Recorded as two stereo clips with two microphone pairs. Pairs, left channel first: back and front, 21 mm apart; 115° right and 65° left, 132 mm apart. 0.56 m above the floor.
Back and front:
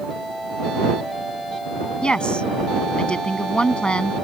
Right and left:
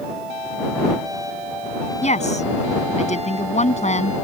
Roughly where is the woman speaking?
Behind right.